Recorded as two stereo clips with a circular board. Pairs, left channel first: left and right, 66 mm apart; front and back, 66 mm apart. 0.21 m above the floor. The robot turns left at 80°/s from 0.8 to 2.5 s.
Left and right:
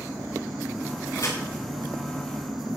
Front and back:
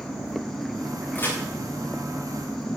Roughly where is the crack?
Ahead left.